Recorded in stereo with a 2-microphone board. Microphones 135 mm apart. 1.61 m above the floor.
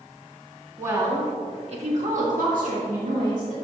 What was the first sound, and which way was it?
A woman speaking, 20° right (ahead or behind).